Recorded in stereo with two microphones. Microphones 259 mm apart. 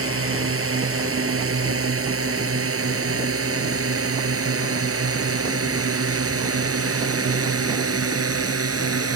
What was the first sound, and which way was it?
A drone, 55° right (ahead or behind).